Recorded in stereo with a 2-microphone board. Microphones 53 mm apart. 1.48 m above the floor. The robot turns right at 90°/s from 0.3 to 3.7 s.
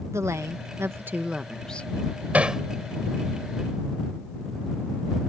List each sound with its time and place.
0.1 s a woman speaking: 110° right; by 1.9 s 35° left
2.3 s hammering: 30° right (ahead or behind); by 2.6 s 5° right (ahead or behind)